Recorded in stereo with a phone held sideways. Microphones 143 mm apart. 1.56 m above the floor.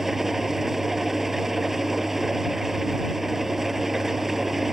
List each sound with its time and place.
0.0 s an engine running: centre (ahead or behind)